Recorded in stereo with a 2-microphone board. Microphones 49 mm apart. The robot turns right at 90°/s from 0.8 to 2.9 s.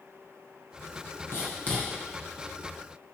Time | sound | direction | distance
1.3 | writing | 60° left (ahead or behind) | 2.5 m